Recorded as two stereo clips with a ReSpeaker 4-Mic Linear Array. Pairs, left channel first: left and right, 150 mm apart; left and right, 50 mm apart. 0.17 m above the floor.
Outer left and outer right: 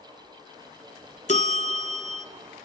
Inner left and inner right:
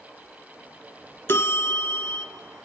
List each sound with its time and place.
1.3 s a bell: 50° left (ahead or behind), 1.0 m